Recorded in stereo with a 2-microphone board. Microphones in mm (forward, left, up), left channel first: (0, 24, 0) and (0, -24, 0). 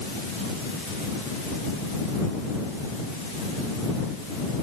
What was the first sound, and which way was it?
Only background noise.